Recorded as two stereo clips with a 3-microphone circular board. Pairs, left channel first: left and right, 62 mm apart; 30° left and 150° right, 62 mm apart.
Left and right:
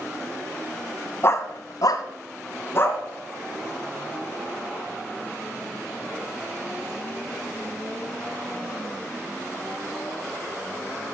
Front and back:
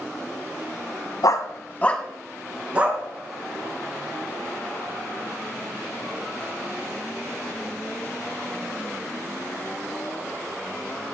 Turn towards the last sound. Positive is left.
turn(degrees=145)